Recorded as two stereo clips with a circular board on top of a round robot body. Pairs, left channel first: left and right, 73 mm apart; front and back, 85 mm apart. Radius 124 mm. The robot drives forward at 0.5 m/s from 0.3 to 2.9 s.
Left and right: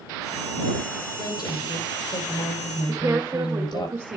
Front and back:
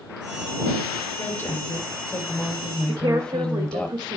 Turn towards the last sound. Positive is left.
turn(degrees=-145)